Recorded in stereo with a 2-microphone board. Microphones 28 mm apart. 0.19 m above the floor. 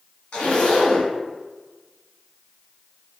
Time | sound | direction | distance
0.3 | a zipper | 40° left (ahead or behind) | 1.8 m